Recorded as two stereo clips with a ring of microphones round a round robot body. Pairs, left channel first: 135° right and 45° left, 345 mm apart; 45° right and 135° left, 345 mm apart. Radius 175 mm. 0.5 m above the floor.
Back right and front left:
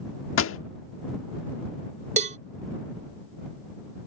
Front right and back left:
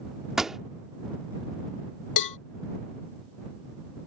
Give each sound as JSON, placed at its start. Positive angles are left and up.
{"t": 0.4, "sound": "a pop", "azimuth_deg": -135}
{"t": 2.2, "sound": "a cowbell", "azimuth_deg": -25}